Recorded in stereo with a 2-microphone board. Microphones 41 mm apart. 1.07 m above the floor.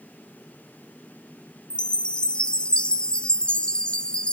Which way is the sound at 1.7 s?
25° left (ahead or behind).